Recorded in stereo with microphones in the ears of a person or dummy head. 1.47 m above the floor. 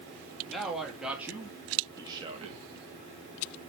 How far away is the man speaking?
About 2 m.